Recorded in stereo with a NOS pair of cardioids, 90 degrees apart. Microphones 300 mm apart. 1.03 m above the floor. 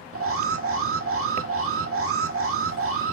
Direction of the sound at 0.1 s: 45° right.